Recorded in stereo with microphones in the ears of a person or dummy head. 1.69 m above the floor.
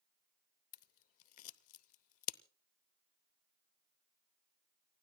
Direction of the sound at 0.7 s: 45° left (ahead or behind).